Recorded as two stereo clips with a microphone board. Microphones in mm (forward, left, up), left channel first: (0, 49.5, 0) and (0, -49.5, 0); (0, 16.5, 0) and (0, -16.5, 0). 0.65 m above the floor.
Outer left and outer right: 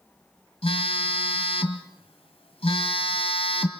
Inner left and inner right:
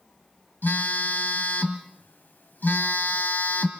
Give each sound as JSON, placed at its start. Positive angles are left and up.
{"t": 0.6, "sound": "a phone buzzing", "side_deg": 75, "distance_m": 1.8}